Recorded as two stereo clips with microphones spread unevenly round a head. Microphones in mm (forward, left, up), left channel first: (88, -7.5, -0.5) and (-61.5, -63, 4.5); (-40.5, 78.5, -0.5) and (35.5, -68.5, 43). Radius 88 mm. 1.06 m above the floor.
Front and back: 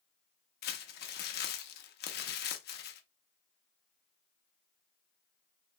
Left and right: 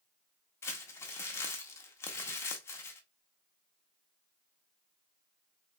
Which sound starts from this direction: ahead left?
Crumpling, at 0.6 s.